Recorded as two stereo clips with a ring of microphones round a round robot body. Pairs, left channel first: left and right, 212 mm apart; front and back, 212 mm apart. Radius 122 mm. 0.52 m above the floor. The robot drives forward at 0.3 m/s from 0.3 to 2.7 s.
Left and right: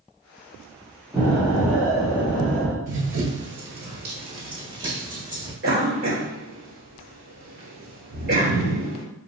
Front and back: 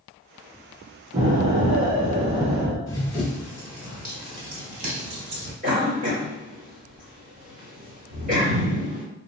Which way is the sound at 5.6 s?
130° right.